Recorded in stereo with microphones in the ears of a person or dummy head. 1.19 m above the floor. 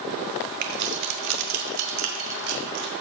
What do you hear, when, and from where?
0.6 s keys jangling: 45° right (ahead or behind), 0.7 m; by 2.9 s 80° right, 2 m